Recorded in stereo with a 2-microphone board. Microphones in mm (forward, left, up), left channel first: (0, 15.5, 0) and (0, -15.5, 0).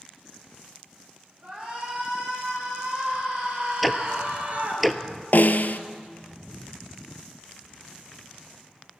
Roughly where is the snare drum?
Left.